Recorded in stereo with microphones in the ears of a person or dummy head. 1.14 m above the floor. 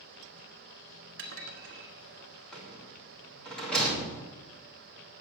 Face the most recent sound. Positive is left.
turn(degrees=0)  # may be behind; listen again after turning